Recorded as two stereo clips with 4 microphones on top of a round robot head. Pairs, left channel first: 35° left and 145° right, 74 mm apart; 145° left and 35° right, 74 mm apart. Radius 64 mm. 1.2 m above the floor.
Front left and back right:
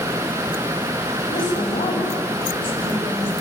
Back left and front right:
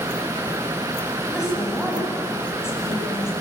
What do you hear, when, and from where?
1.3 s a woman speaking: 50° left, 10 m